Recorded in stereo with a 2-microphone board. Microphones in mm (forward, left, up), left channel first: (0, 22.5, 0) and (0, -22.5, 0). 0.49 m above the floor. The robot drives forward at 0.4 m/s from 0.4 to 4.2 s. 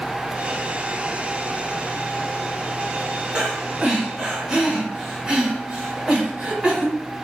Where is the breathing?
20° right (ahead or behind), 1.2 m.